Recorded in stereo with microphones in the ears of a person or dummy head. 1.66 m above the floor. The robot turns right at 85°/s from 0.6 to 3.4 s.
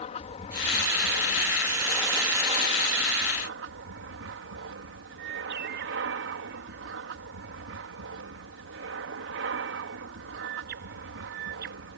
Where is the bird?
60° right (ahead or behind).